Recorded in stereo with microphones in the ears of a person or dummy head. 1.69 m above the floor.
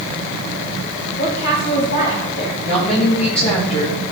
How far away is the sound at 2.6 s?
About 1.8 m.